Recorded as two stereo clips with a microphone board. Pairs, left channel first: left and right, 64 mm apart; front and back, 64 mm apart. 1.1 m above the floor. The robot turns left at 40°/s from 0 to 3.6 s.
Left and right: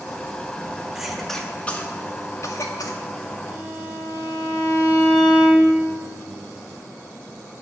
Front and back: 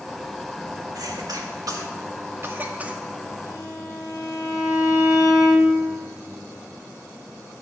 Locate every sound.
0.9 s a cough: 170° right, 1.8 m; by 3.0 s 105° left, 1.8 m
3.5 s a violin: 20° right, 3.5 m; by 5.8 s 25° right, 3.5 m